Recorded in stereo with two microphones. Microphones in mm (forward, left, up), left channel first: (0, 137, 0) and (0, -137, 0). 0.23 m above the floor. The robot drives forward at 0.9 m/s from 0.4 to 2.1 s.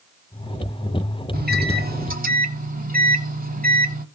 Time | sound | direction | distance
1.3 | a microwave | 35° right (ahead or behind) | 1.0 m